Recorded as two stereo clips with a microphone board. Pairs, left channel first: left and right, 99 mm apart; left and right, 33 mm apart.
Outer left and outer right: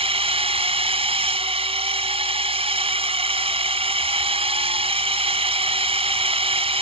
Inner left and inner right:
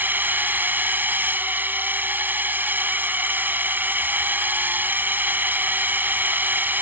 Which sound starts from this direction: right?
A drone, at 0.0 s.